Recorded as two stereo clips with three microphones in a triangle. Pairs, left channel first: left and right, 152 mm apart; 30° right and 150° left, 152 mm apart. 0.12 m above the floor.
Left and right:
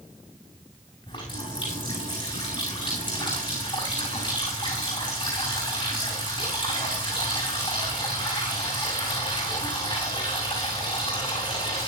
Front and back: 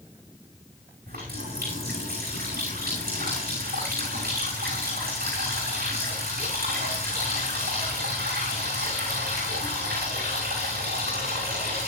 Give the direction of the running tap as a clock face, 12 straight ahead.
7 o'clock.